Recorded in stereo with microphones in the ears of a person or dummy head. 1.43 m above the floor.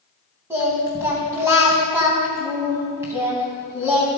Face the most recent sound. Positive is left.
turn(degrees=-15)  # may be behind; listen again after turning